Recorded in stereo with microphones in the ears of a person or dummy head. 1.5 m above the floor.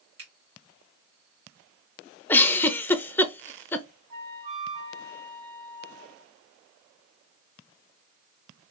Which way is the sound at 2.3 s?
10° left (ahead or behind).